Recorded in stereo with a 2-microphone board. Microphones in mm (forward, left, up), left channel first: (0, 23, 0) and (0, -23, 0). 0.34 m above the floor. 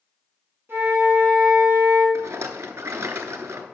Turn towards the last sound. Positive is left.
turn(degrees=-80)